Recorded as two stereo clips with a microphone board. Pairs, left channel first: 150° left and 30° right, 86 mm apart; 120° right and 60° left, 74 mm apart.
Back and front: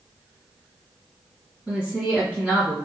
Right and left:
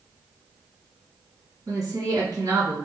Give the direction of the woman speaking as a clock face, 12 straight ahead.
10 o'clock.